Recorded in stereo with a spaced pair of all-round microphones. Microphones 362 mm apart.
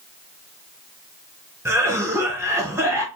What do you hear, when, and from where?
1.6 s a cough: 10° right (ahead or behind), 0.5 m